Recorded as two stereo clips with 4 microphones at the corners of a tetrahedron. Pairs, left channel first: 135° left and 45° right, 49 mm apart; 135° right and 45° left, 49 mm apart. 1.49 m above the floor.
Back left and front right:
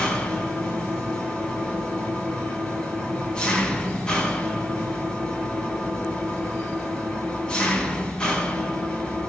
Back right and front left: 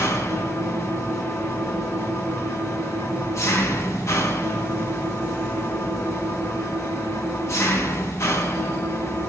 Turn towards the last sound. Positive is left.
turn(degrees=-155)